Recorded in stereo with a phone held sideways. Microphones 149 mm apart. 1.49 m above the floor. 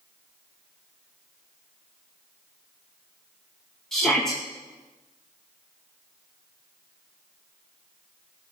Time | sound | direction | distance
3.9 | a shout | 5° left (ahead or behind) | 2 m